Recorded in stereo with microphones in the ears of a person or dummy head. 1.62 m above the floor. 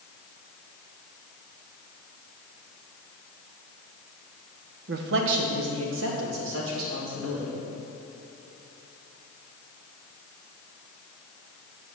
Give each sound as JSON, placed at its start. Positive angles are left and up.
{"t": 4.9, "sound": "a man speaking", "side_deg": -60, "distance_m": 0.9}